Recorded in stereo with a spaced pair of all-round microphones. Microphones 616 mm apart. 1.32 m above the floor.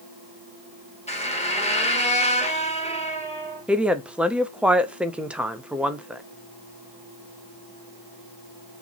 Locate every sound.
1.1 s a squeak: 10° left (ahead or behind), 1.0 m
3.7 s a woman speaking: centre (ahead or behind), 0.5 m